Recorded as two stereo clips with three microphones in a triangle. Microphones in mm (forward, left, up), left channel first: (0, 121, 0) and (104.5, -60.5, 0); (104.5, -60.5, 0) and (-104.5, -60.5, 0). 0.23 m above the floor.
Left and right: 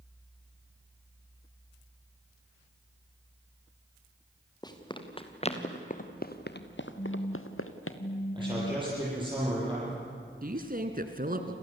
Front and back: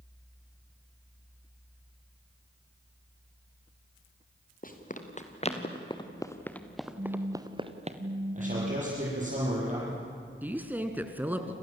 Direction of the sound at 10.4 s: 100° right.